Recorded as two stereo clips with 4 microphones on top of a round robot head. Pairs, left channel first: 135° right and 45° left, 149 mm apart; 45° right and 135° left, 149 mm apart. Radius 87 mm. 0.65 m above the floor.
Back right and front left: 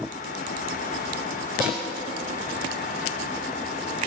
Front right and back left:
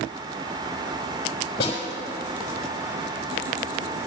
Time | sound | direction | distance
1.6 | a snare drum | 25° right | 4.5 m